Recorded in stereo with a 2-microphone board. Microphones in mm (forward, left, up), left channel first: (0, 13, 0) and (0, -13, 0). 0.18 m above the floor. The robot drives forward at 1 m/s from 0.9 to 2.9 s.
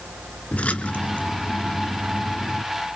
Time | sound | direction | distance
0.5 | a splash | 55° left (ahead or behind) | 2 m